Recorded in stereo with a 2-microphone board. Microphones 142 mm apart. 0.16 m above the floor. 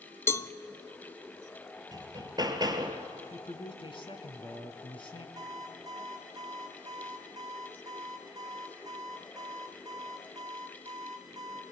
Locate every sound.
0.3 s a cowbell: 20° left (ahead or behind), 0.6 m
1.9 s hammering: 30° right (ahead or behind), 2 m
3.3 s a man speaking: 40° left (ahead or behind), 2 m
5.4 s an alarm clock: 25° right (ahead or behind), 5.5 m